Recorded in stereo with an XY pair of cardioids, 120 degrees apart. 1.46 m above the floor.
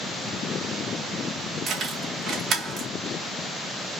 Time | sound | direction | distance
1.7 | keys jangling | 50° right | 2 m